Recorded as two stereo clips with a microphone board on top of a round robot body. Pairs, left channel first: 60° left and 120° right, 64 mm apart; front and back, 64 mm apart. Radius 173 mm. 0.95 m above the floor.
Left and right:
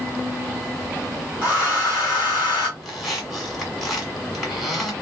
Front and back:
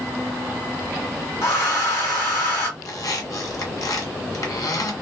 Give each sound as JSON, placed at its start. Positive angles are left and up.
{"t": 1.4, "sound": "a hair dryer", "azimuth_deg": -45, "distance_m": 1.2}
{"t": 2.8, "sound": "a squeak", "azimuth_deg": -30, "distance_m": 1.5}